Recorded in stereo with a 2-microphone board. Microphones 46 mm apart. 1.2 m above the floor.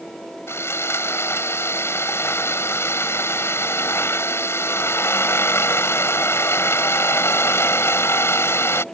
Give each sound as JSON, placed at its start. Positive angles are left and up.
{"t": 0.5, "sound": "sawing", "side_deg": 75}